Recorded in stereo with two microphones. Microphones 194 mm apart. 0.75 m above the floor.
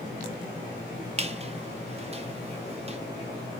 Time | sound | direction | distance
1.2 | a squeak | 35° right (ahead or behind) | 0.6 m